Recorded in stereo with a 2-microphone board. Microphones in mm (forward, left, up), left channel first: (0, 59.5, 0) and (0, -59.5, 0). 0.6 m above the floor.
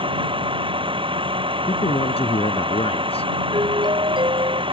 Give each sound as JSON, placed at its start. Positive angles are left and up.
{"t": 0.0, "sound": "a vehicle", "side_deg": -45}
{"t": 1.7, "sound": "a man speaking", "side_deg": 55}
{"t": 3.5, "sound": "a doorbell", "side_deg": -40}